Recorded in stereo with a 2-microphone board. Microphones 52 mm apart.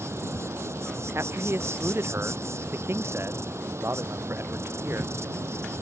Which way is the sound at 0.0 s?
60° right (ahead or behind).